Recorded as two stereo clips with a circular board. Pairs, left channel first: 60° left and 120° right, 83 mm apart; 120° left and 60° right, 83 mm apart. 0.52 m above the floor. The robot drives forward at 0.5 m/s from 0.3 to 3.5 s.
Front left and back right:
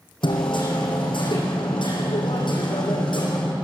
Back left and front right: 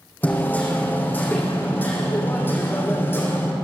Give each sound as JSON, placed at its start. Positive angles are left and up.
{"t": 0.2, "sound": "hammering", "azimuth_deg": 50, "distance_m": 8.0}